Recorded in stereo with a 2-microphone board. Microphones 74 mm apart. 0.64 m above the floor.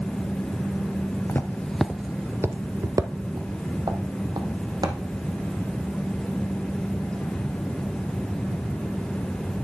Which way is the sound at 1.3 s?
30° left (ahead or behind).